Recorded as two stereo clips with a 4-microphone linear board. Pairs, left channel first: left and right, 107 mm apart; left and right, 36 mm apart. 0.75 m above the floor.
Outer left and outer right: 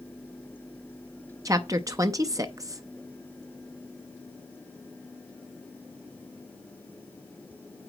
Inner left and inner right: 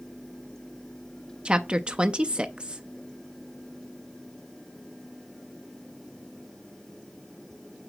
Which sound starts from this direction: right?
A woman speaking, at 1.4 s.